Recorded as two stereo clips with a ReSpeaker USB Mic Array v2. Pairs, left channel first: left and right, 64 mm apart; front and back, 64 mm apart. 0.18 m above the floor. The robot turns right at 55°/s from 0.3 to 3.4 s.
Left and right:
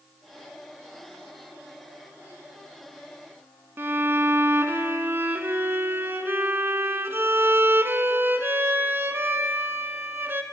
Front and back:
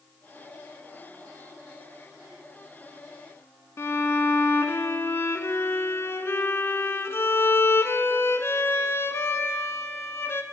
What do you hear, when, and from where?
3.8 s a violin: 40° right, 0.5 m